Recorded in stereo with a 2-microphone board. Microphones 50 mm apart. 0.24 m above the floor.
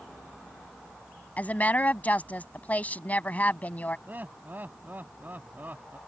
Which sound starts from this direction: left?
A woman speaking, at 1.4 s.